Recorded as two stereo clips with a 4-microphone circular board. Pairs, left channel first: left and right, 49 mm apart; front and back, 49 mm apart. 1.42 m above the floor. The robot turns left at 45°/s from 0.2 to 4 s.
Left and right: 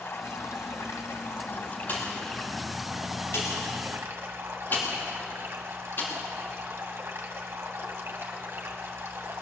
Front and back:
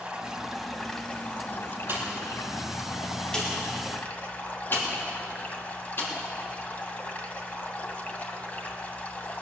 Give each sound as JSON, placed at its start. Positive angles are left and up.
{"t": 0.0, "sound": "running water", "azimuth_deg": 110, "distance_m": 1.8}
{"t": 1.9, "sound": "a pop", "azimuth_deg": 135, "distance_m": 3.5}